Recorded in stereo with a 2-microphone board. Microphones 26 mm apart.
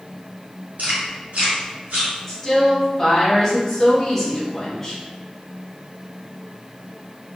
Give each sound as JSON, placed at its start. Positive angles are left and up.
{"t": 0.8, "sound": "chewing", "side_deg": -80, "distance_m": 1.9}
{"t": 2.3, "sound": "a woman speaking", "side_deg": 10, "distance_m": 1.0}